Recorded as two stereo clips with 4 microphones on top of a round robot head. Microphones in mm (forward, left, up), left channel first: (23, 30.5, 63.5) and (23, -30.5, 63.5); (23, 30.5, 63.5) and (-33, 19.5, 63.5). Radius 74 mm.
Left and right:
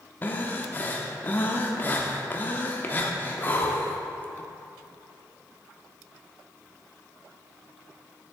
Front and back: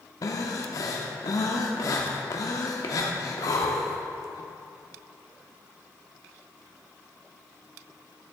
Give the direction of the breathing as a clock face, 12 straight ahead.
11 o'clock.